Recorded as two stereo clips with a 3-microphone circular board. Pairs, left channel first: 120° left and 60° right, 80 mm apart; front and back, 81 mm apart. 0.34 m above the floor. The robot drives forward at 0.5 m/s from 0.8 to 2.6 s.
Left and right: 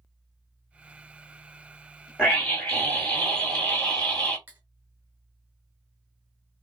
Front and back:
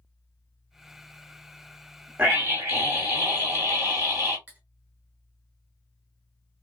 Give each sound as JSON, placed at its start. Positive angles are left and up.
{"t": 2.2, "sound": "a scream", "azimuth_deg": -175, "distance_m": 1.3}
{"t": 4.5, "sound": "cutlery clinking", "azimuth_deg": -120, "distance_m": 0.8}